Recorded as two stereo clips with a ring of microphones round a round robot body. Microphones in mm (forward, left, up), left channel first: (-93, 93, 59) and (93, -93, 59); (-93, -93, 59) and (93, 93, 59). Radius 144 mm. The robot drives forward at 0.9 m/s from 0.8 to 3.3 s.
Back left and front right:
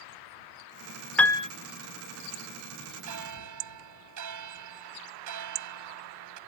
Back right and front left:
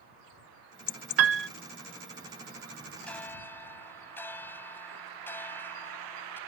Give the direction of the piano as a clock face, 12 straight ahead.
10 o'clock.